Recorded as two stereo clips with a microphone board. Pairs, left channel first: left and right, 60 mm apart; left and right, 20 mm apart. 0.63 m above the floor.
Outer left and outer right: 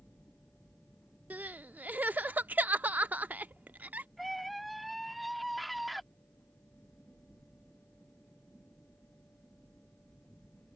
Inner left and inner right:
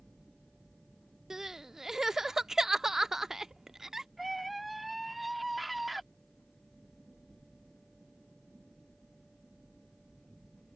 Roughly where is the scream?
Centre.